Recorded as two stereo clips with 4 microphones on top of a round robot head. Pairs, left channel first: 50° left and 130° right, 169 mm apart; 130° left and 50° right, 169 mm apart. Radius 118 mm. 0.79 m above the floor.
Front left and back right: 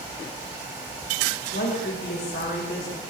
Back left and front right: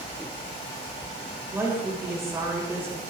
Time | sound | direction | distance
1.5 | a woman speaking | 25° left | 3 m